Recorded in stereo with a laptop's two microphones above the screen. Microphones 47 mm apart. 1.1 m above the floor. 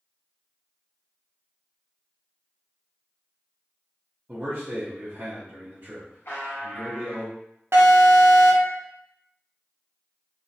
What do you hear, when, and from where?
4.3 s a man speaking: 40° right (ahead or behind), 0.7 m
6.2 s a buzzer: 60° left (ahead or behind), 0.8 m
7.7 s an alarm: 65° right (ahead or behind), 0.6 m